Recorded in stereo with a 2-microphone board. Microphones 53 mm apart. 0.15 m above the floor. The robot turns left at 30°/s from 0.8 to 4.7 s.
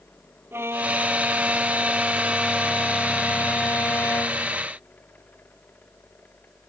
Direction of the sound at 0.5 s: 130° right.